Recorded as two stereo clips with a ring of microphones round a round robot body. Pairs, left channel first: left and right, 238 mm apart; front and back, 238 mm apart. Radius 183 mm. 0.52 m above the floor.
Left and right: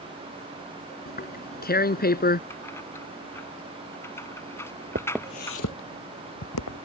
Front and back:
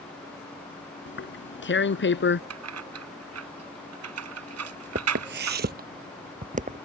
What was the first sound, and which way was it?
Tearing paper, 40° left.